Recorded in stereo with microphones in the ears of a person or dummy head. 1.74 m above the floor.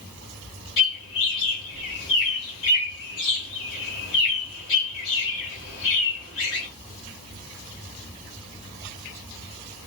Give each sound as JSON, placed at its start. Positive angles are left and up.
{"t": 0.8, "sound": "a bird", "side_deg": 80, "distance_m": 2.0}